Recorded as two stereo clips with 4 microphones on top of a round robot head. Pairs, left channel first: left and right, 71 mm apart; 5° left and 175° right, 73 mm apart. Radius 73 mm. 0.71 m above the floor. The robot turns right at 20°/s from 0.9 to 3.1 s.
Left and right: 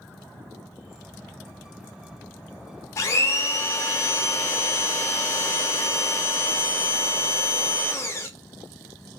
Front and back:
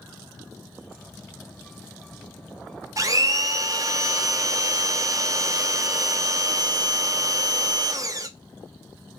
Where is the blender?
140° left, 0.6 m; by 8.3 s 145° left, 0.6 m.